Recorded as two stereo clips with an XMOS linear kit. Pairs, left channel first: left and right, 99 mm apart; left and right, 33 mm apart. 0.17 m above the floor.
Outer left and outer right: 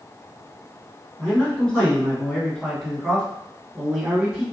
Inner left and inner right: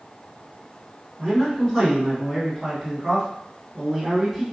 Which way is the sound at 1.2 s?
25° left (ahead or behind).